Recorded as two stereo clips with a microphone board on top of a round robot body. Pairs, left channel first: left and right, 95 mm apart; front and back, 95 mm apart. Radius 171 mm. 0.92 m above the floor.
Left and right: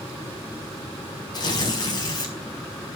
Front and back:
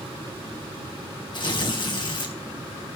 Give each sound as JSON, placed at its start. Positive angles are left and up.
{"t": 1.3, "sound": "tearing paper", "azimuth_deg": 40, "distance_m": 4.5}